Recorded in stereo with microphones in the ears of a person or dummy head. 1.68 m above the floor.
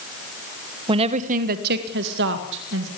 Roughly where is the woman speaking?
Right.